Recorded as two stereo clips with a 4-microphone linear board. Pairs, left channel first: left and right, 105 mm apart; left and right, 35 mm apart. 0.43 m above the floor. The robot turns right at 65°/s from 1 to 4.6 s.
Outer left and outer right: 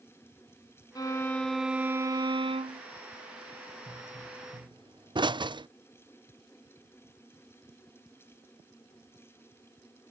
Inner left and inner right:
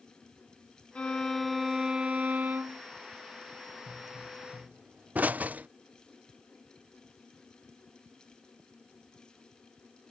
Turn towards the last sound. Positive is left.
turn(degrees=-45)  # may be behind; listen again after turning